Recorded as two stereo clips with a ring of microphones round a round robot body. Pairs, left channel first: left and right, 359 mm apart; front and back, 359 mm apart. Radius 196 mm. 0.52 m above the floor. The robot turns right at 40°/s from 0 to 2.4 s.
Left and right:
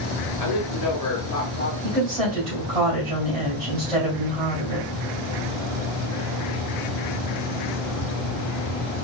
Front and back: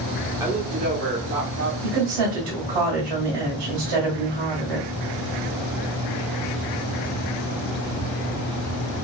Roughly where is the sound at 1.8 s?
Behind.